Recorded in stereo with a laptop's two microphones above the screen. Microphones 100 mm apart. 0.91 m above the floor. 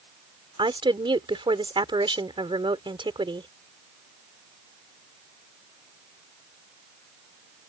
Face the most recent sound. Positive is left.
turn(degrees=-55)  # may be behind; listen again after turning